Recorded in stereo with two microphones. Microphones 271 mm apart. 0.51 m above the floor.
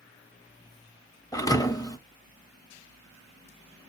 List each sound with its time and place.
1.3 s a thud: 15° left (ahead or behind), 0.6 m